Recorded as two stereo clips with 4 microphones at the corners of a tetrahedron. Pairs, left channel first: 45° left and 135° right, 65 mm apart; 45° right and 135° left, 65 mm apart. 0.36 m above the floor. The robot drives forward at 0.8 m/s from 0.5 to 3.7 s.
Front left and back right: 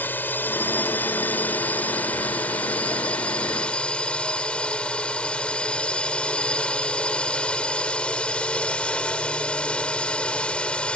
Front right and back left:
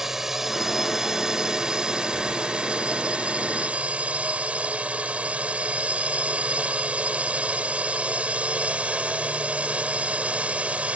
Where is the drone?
60° left; by 11.0 s 95° left.